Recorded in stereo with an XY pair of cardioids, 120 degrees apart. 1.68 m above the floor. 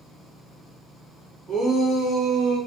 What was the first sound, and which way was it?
A shout, 35° right.